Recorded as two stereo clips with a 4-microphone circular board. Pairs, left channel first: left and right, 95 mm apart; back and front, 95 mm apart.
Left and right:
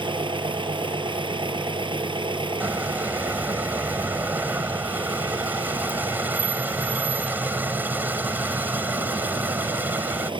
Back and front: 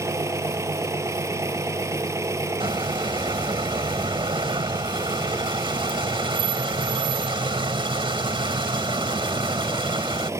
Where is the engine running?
60° right.